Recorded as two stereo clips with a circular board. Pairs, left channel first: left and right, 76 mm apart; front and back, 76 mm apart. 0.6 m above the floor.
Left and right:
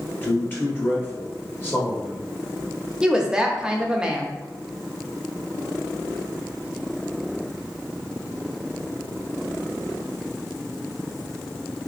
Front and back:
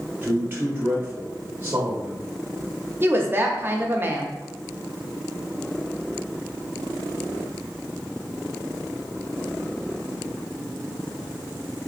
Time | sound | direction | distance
0.2 | a man speaking | 135° left | 1.5 m
3.0 | a woman speaking | 155° right | 0.7 m